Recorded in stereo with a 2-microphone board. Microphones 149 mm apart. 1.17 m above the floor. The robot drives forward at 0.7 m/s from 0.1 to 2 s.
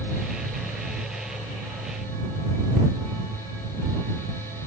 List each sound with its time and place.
Only background noise.